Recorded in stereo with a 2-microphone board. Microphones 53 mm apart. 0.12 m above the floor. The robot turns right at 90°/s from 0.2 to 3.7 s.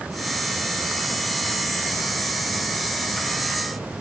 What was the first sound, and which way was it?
Only background noise.